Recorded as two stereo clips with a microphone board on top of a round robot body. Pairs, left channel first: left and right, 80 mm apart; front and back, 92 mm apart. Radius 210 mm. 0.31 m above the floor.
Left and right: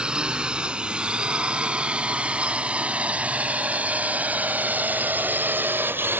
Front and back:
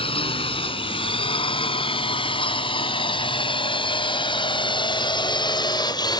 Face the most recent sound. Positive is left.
turn(degrees=-30)